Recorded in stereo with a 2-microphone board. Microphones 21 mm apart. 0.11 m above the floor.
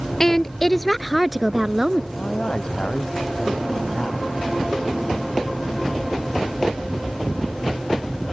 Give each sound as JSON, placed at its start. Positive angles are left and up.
{"t": 0.2, "sound": "a woman speaking", "side_deg": 20}
{"t": 2.2, "sound": "a man speaking", "side_deg": 50}